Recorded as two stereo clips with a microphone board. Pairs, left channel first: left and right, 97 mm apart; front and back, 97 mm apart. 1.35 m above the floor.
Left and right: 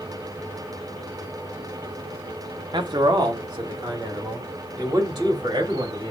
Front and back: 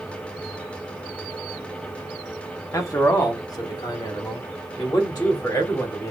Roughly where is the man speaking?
Ahead right.